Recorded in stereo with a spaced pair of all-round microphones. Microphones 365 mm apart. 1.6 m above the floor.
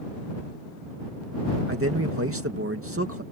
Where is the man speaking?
35° right (ahead or behind).